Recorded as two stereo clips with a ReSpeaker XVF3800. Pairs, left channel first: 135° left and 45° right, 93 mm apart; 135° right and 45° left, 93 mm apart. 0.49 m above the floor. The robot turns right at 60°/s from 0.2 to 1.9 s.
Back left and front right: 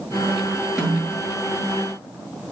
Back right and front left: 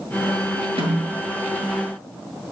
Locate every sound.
0.8 s a snare drum: 40° left, 7 m; by 1.1 s 60° left, 7 m